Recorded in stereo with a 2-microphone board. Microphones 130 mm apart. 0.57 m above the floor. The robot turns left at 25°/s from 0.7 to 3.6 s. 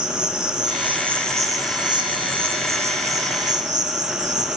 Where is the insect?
10° right, 0.9 m; by 4.6 s 80° right, 0.9 m.